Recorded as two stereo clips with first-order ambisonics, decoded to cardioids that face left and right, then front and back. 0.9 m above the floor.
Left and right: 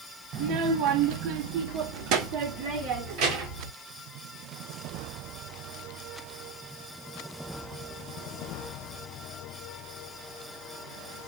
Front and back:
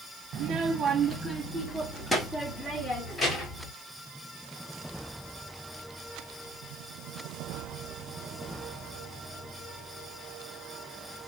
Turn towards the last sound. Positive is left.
turn(degrees=-75)